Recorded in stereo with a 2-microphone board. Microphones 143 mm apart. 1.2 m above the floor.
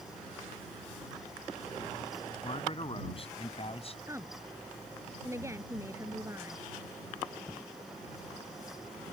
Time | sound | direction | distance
2.4 | a man speaking | 40° left (ahead or behind) | ?
4.1 | a woman speaking | 20° right (ahead or behind) | ?